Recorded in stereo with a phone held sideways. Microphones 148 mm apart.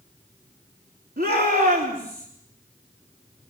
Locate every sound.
1.2 s a shout: 85° right, 3.5 m; by 2.3 s 80° right, 4 m